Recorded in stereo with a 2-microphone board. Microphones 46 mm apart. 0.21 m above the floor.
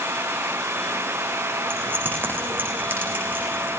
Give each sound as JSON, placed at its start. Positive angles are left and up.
{"t": 1.7, "sound": "keys jangling", "side_deg": -45, "distance_m": 9.5}